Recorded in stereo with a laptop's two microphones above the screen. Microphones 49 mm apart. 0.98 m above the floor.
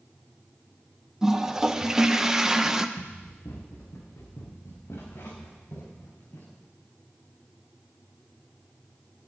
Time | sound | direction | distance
1.2 | a toilet flushing | 10° right (ahead or behind) | 0.7 m
3.0 | running footsteps | 80° left | 7 m